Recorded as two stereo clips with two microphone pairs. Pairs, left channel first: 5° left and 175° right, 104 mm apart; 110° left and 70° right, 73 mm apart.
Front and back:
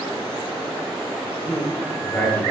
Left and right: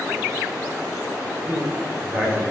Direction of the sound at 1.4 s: 50° right.